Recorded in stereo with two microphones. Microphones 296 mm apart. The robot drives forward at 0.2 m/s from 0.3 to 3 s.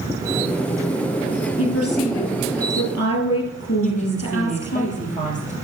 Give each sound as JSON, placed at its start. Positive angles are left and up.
{"t": 1.6, "sound": "a woman speaking", "side_deg": 50, "distance_m": 2.5}
{"t": 3.8, "sound": "a woman speaking", "side_deg": 25, "distance_m": 3.5}